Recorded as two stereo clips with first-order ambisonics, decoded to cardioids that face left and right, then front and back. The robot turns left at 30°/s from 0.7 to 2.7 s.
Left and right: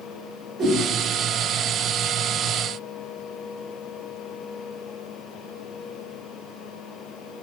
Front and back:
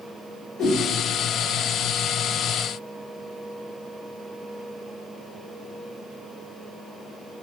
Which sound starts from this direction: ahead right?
A whoosh, at 0.6 s.